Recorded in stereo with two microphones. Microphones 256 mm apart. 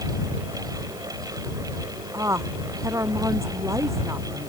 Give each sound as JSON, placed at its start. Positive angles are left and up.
{"t": 2.1, "sound": "a woman speaking", "side_deg": -10}